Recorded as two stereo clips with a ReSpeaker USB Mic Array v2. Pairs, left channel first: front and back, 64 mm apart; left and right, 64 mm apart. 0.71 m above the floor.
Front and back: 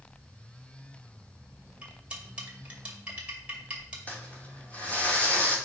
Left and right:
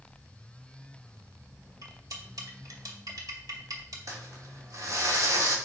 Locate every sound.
1.8 s cutlery clinking: 105° right, 2 m
4.1 s crumpling: 65° right, 2.5 m